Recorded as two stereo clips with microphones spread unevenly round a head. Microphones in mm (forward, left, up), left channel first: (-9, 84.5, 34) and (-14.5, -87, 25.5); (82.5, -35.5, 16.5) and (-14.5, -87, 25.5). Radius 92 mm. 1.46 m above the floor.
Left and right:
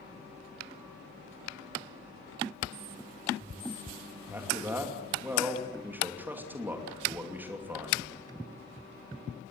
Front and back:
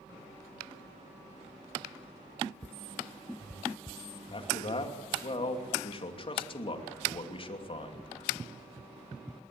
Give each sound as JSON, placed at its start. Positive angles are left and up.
{"t": 4.3, "sound": "a man speaking", "azimuth_deg": -10, "distance_m": 2.5}